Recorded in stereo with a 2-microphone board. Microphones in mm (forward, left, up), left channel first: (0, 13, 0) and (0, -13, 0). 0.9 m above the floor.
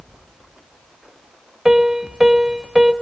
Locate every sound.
1.6 s a piano: 20° right (ahead or behind), 1.5 m